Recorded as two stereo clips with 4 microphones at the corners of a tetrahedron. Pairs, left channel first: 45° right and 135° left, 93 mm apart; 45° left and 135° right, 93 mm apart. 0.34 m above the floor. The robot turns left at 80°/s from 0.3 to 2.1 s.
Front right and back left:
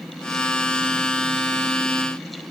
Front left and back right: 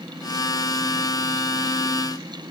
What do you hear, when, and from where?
Only background noise.